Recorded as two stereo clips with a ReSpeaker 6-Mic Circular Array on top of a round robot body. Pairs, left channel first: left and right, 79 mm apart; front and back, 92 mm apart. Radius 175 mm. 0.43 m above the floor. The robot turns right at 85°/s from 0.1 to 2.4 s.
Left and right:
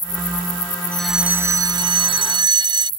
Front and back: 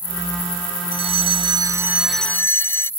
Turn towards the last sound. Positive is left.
turn(degrees=-65)